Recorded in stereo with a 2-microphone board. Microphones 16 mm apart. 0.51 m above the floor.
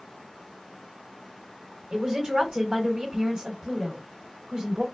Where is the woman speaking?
60° right (ahead or behind), 1.9 m.